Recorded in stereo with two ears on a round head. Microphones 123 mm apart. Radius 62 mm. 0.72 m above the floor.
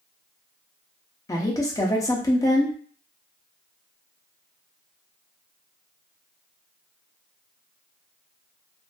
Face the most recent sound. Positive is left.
turn(degrees=25)  # may be behind; listen again after turning